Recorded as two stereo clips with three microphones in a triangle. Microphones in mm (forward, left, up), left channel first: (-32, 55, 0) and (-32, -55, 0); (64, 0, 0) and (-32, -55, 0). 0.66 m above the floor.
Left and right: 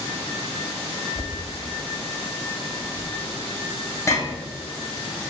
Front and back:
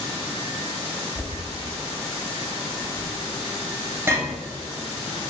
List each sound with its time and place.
1.1 s knocking: 145° left, 0.6 m